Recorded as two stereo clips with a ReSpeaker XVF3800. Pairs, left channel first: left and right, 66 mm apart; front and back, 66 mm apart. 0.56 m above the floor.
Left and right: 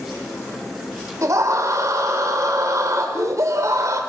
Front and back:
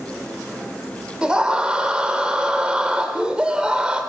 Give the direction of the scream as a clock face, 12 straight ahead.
4 o'clock.